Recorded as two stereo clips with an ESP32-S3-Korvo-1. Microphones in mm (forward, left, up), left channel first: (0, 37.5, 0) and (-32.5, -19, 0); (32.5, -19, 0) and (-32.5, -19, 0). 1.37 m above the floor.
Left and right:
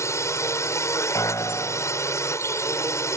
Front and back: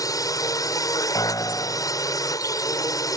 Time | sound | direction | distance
0.0 | a drone | 20° left | ?
1.1 | a piano | 25° left | ?